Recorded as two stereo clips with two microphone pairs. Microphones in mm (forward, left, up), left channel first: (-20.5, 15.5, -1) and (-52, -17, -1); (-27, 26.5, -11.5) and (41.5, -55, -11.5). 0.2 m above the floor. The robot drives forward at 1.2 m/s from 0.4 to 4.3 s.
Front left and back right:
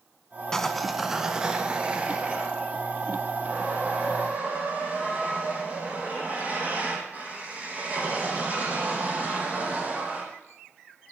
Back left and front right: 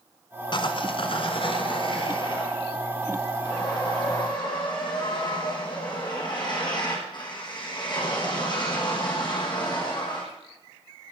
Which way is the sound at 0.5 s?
125° left.